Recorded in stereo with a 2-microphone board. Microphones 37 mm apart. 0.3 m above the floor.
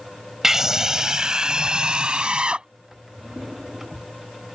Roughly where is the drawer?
Centre.